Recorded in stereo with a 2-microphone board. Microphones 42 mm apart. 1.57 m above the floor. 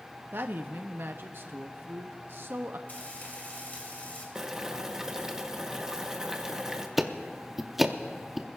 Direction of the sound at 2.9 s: 45° left (ahead or behind).